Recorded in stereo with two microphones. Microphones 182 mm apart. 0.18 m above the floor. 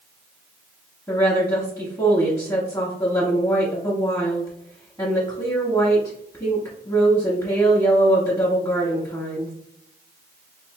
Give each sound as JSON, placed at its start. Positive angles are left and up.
{"t": 1.1, "sound": "a woman speaking", "side_deg": 20, "distance_m": 1.3}